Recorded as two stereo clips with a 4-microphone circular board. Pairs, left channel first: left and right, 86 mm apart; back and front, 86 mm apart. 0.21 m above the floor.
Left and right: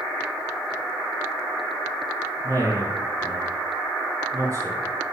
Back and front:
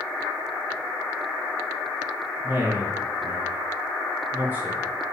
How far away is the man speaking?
About 2 m.